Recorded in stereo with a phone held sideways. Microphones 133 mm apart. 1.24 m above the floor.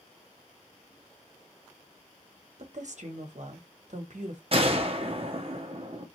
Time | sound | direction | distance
2.6 | a woman speaking | 65° right (ahead or behind) | 1.1 m
4.5 | a gunshot | 45° right (ahead or behind) | 0.8 m